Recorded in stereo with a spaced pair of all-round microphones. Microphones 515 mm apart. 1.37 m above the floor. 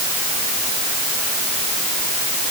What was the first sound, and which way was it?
Only background noise.